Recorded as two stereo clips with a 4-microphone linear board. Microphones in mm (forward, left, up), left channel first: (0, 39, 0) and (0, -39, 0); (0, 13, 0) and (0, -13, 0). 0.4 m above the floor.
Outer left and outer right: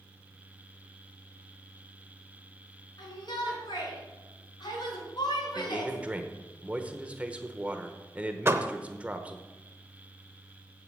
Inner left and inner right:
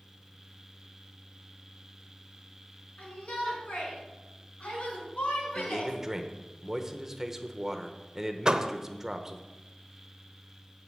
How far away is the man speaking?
About 1.0 m.